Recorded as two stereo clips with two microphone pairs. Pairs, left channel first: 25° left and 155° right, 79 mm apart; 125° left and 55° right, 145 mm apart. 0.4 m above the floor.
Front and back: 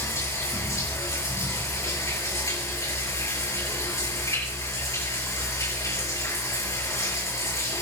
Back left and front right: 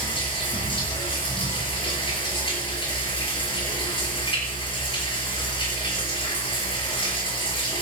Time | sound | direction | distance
0.0 | running water | 75° left | 6.5 m